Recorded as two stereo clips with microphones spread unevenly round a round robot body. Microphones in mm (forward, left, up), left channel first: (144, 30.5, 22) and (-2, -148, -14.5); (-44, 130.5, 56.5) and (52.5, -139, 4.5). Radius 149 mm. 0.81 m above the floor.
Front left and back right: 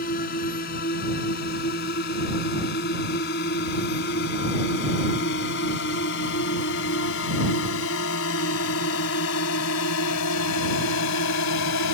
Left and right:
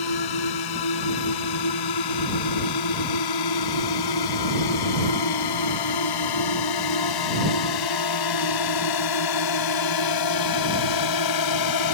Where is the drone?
115° left; by 11.9 s 90° left.